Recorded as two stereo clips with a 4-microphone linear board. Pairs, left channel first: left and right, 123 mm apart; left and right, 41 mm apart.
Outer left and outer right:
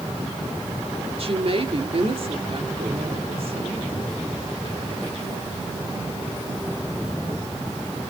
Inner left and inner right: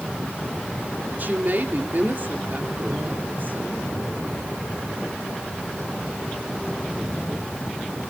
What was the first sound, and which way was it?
A woman speaking, 50° right (ahead or behind).